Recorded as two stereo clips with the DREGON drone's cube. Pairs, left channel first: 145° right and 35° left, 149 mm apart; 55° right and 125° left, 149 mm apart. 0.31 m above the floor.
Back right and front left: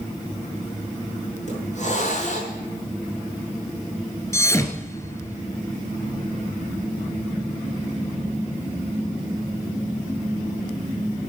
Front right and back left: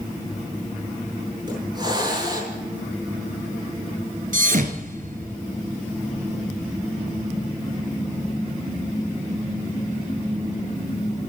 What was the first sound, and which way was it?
A hiss, straight behind.